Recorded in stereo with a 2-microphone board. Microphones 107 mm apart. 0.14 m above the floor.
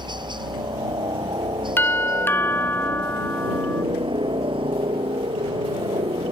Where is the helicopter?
45° right (ahead or behind); by 6.3 s 60° right (ahead or behind).